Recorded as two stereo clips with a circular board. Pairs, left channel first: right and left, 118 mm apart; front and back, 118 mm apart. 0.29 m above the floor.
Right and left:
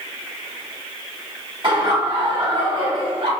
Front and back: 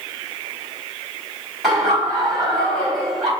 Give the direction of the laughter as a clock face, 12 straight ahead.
9 o'clock.